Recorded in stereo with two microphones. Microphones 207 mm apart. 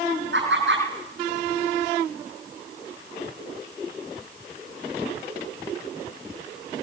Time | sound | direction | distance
0.3 | laughter | 65° right (ahead or behind) | 8.5 m